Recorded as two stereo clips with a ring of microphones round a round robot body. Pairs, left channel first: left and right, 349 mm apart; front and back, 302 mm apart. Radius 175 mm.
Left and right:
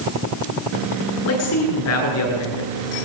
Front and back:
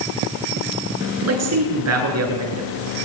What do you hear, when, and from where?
1.2 s a man speaking: 140° left, 10 m